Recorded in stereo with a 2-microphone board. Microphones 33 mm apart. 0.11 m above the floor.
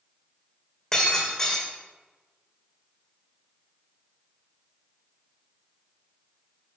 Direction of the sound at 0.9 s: 20° left (ahead or behind).